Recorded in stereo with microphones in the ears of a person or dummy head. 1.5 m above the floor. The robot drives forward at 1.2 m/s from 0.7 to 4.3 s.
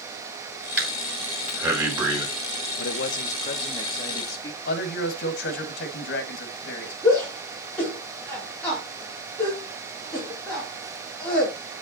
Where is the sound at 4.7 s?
65° left (ahead or behind), 2.0 m.